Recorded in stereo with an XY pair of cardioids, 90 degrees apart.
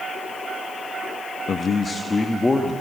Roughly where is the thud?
I don't hear a thud.